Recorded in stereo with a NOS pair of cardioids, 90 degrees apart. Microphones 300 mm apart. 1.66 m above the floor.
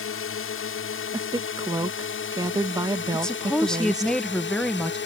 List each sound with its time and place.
0.0 s a drone: 50° left; by 5.1 s 40° left
1.1 s a woman speaking: 15° right
3.1 s a woman speaking: straight ahead